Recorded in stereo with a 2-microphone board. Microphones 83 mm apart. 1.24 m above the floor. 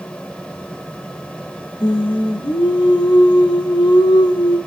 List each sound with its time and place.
1.8 s singing: 70° left (ahead or behind), 1.5 m